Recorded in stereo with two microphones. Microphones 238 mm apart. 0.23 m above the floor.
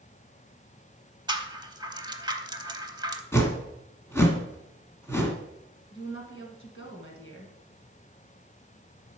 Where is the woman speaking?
55° left (ahead or behind), 2 m.